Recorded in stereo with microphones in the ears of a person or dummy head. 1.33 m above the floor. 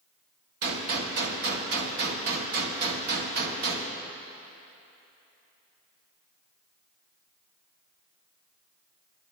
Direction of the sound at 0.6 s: 55° right (ahead or behind).